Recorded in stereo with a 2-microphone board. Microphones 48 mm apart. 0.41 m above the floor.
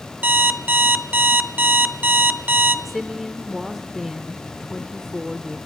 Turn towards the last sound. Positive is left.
turn(degrees=0)  # may be behind; listen again after turning